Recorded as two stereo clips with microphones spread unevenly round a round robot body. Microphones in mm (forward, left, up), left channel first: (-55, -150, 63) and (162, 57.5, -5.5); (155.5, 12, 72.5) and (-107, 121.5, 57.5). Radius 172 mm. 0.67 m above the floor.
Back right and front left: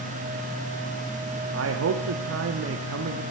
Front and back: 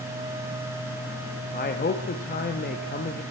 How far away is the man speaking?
About 0.8 m.